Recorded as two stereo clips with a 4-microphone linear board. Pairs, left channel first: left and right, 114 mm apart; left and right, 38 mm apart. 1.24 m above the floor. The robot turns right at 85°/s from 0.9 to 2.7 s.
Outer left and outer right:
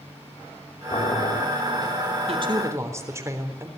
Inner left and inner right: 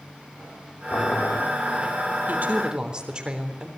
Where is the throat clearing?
No throat clearing in this recording.